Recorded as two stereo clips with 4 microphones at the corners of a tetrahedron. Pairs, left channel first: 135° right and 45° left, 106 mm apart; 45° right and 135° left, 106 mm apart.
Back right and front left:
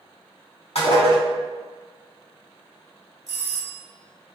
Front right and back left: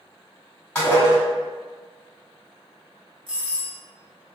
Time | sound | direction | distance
0.8 | dishes clattering | 115° right | 1.4 m
3.3 | a doorbell | 65° left | 1.1 m